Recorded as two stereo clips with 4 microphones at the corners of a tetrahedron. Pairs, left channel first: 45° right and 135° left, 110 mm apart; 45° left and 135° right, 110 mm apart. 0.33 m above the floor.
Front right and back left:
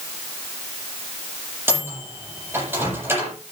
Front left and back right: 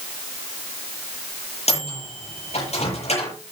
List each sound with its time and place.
1.7 s a microwave: 65° left, 8 m